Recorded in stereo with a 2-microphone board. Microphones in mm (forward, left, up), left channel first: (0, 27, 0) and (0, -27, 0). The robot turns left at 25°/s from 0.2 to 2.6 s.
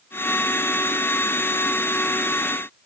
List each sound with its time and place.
Only background noise.